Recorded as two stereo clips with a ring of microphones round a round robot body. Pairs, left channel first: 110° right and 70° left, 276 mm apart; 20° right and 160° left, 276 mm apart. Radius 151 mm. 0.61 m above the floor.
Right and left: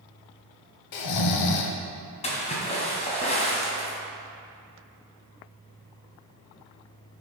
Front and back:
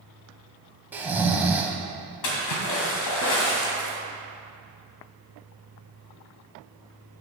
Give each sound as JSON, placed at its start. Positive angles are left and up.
{"t": 0.9, "sound": "snoring", "azimuth_deg": -120, "distance_m": 0.7}
{"t": 2.2, "sound": "a splash", "azimuth_deg": -45, "distance_m": 2.0}